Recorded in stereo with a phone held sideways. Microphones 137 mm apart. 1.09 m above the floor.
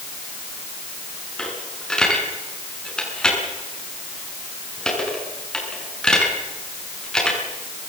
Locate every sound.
1.4 s a dropped coin: 5° left (ahead or behind), 6 m